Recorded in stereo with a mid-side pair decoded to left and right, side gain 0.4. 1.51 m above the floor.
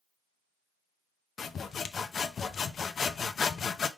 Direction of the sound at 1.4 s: 55° left.